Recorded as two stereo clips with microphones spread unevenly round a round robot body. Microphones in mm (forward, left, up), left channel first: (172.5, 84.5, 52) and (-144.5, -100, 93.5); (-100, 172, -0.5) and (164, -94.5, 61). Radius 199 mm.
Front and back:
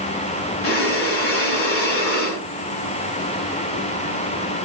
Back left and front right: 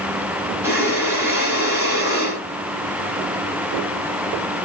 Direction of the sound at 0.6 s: 40° left.